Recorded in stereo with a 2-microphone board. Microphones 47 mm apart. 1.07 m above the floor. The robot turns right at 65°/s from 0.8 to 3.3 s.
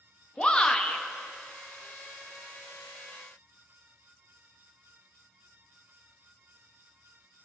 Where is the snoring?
No snoring in this recording.